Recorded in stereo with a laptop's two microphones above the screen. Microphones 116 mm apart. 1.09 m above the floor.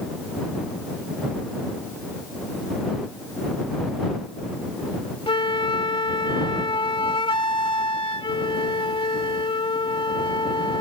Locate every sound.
5.3 s a flute: 50° left (ahead or behind)